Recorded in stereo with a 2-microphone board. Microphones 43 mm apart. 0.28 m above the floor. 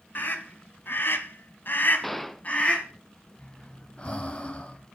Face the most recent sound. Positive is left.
turn(degrees=30)  # may be behind; listen again after turning